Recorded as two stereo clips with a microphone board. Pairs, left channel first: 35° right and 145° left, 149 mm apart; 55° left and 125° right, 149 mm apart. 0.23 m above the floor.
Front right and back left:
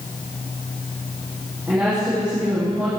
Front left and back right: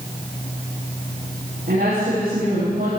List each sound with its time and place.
1.7 s a woman speaking: 135° right, 10 m